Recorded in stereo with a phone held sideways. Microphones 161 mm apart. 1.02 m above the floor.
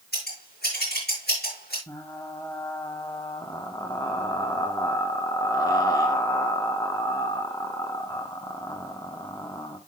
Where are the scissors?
85° left, 8 m.